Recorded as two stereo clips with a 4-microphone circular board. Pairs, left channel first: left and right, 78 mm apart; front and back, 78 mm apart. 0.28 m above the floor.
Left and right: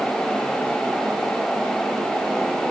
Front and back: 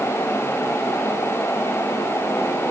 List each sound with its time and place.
Only background noise.